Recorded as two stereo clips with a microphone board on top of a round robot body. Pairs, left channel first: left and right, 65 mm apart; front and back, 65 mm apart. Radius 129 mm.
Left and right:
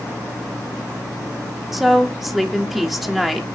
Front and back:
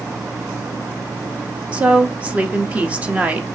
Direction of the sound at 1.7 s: 165° right.